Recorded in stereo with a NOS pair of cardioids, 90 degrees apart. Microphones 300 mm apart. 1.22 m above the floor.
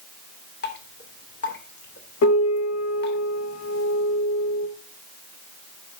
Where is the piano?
60° left, 1.4 m.